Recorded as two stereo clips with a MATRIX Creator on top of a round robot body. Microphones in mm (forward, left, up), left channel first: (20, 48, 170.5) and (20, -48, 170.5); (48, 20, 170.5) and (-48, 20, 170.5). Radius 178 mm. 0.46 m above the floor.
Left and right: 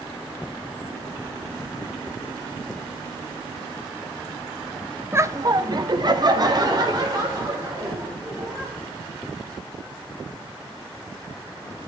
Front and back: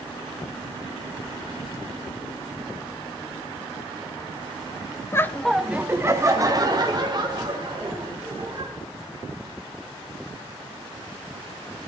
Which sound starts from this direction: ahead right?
Laughter, at 5.1 s.